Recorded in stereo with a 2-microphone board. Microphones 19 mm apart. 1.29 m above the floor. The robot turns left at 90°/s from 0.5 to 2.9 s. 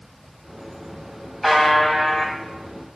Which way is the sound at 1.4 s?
165° right.